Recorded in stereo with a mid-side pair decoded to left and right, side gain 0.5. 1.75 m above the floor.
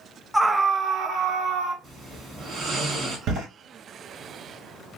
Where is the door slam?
70° right, 2 m.